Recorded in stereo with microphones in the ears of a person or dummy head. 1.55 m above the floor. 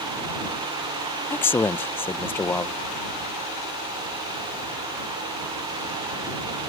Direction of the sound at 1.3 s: 5° left (ahead or behind).